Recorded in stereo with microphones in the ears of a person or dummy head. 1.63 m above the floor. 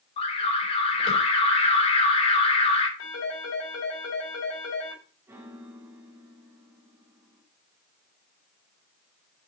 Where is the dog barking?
I don't hear a dog barking.